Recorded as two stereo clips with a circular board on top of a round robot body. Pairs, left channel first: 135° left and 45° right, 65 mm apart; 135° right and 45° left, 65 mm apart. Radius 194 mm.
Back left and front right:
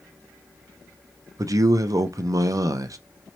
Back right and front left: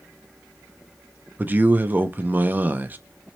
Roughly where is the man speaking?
Ahead.